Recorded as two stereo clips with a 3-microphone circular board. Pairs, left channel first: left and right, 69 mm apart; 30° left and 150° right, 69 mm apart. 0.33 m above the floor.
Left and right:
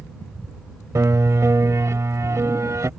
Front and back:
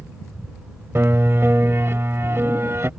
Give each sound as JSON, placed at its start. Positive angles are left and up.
{"t": 0.9, "sound": "a piano", "azimuth_deg": -110}